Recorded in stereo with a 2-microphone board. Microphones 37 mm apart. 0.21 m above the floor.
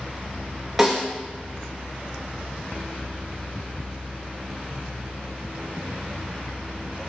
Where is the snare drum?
10° right (ahead or behind), 4 m.